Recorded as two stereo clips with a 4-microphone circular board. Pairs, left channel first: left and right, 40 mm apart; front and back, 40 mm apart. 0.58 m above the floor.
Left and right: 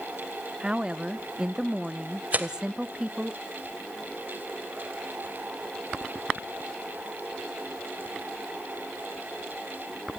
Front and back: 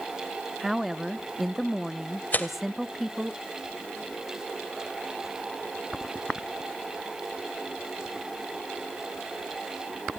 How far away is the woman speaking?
About 0.6 m.